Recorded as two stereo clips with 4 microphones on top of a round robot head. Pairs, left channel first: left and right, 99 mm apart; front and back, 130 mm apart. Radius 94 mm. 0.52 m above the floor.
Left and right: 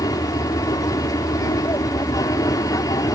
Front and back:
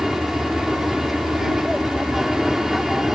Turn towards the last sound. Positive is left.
turn(degrees=95)